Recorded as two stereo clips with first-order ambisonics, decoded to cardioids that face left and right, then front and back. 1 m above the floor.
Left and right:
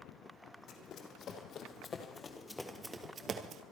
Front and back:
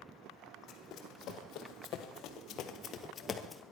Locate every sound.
0.7 s running footsteps: 45° left, 3 m; by 3.6 s 75° right, 1.2 m